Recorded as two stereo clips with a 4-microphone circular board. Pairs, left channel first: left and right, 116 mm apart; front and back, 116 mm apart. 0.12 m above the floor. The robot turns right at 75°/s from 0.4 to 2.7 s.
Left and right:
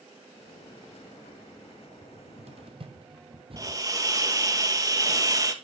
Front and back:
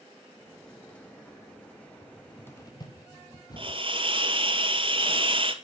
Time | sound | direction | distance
2.0 | a cupboard door | 105° right | 2.5 m
3.6 | a hiss | 145° right | 1.8 m